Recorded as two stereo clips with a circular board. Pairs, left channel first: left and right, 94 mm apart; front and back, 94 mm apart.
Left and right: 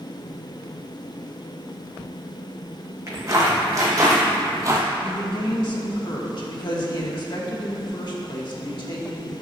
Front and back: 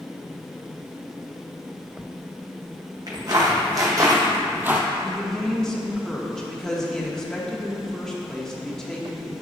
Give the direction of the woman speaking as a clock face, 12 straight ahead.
9 o'clock.